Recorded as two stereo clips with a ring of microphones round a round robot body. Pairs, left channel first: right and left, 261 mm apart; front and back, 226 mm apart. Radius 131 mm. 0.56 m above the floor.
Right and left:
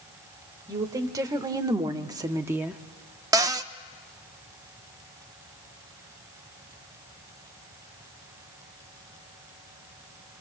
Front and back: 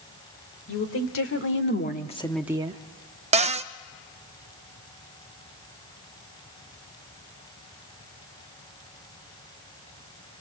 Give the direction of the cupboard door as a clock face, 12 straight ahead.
7 o'clock.